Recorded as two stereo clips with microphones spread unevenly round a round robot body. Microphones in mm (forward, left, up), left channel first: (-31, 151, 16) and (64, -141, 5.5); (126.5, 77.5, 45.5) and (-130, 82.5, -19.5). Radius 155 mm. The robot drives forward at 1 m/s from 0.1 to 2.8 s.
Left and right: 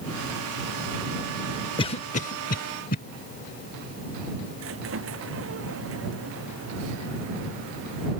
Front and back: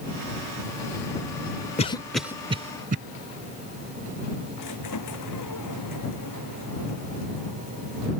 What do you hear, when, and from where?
1.8 s a cough: 55° left; by 3.0 s 160° left
4.6 s a squeak: 25° right